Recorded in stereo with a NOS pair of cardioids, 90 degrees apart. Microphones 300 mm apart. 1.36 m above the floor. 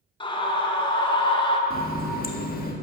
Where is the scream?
15° left, 2 m.